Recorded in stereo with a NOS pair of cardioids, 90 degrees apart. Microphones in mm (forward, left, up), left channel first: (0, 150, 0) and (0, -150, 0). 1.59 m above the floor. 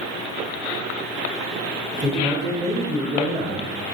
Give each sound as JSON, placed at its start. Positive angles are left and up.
{"t": 1.9, "sound": "a man speaking", "azimuth_deg": -5, "distance_m": 0.8}